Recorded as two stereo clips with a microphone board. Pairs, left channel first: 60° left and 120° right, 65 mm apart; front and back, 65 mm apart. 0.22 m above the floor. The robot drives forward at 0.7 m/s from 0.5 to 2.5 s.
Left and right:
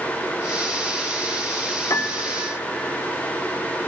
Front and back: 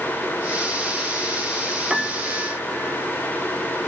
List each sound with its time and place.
1.9 s a piano: 95° left, 0.5 m; by 3.0 s 135° left, 0.7 m